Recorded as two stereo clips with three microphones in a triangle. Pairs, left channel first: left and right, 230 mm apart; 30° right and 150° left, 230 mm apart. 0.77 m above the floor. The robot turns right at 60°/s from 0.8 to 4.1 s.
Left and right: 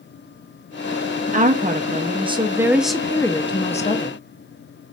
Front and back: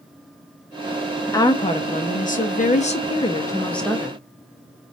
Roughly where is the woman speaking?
Right.